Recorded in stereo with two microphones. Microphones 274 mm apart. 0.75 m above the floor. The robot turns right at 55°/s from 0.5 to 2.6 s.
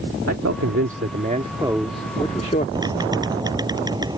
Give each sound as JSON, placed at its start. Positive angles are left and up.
{"t": 0.3, "sound": "a man speaking", "azimuth_deg": -80}
{"t": 2.8, "sound": "typing on a keyboard", "side_deg": -15}